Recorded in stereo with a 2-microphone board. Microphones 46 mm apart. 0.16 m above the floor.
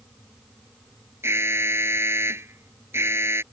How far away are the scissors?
No scissors in this recording.